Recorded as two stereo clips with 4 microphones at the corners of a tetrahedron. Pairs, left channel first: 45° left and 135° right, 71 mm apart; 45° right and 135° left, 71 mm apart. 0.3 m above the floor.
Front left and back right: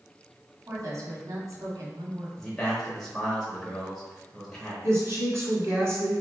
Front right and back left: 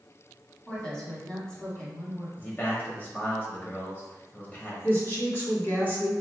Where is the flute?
I don't hear a flute.